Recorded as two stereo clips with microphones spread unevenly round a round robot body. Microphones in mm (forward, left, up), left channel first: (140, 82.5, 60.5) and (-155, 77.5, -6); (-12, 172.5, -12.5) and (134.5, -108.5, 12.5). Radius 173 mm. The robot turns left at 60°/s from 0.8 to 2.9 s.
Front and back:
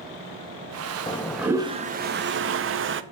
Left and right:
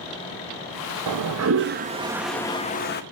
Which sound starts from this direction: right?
A toilet flushing, at 1.1 s.